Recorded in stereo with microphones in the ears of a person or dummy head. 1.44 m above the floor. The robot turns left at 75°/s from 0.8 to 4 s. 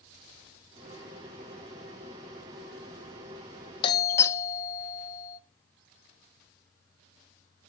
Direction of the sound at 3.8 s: 25° left (ahead or behind).